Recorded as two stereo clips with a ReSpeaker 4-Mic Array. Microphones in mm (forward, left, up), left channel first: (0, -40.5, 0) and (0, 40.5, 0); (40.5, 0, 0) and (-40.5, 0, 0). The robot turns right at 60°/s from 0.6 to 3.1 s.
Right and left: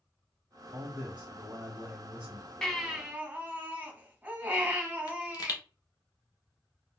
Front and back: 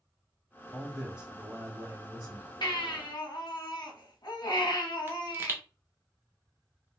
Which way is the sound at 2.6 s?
10° right.